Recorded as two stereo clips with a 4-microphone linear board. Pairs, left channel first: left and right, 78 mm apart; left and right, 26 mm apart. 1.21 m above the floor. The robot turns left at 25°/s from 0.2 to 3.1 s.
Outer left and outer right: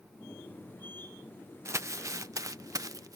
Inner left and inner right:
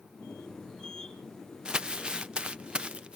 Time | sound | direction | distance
1.6 | crumpling | 35° right (ahead or behind) | ?